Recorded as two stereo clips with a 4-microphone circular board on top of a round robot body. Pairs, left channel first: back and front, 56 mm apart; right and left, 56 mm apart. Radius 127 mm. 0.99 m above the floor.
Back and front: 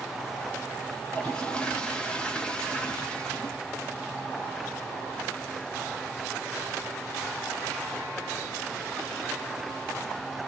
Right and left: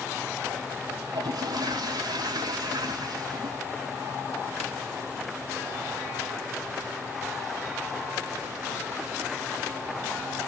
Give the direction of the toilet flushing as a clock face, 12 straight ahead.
9 o'clock.